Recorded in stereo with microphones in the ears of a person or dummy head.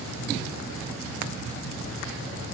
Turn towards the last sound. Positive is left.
No sound to turn to.